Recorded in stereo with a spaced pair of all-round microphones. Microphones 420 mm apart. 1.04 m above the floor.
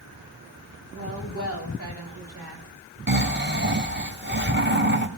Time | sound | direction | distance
0.9 | a woman speaking | 35° right (ahead or behind) | 8 m
3.1 | snoring | 25° right (ahead or behind) | 1.1 m